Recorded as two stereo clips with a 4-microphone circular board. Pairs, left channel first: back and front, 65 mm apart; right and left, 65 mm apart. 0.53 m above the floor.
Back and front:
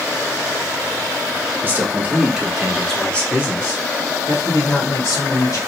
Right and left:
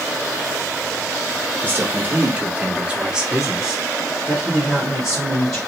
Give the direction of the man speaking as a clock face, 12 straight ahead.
11 o'clock.